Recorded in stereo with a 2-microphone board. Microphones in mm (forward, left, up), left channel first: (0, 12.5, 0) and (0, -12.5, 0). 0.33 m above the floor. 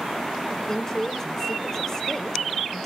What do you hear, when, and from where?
0.5 s a woman speaking: 20° left (ahead or behind), 1.2 m